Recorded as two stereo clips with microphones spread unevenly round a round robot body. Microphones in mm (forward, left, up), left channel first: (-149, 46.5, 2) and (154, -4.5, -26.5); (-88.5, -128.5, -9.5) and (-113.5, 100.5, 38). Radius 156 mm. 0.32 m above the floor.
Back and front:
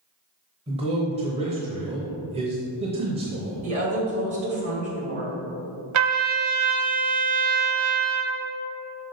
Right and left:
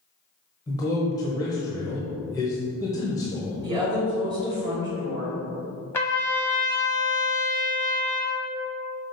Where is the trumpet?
15° right, 1.0 m.